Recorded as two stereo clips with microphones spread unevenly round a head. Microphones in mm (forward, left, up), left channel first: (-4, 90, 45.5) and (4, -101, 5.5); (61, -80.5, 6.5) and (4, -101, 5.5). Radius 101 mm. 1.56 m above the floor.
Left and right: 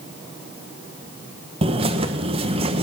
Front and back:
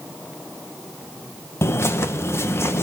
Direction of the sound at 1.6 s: 20° right.